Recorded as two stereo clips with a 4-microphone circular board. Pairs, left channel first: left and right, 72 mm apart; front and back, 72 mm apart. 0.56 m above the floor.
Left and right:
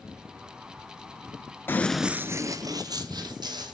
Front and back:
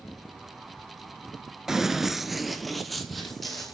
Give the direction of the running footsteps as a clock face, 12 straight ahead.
9 o'clock.